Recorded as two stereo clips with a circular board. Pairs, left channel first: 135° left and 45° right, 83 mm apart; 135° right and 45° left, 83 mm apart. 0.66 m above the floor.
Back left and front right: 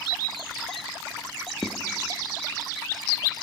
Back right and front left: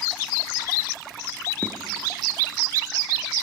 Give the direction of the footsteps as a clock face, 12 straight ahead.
10 o'clock.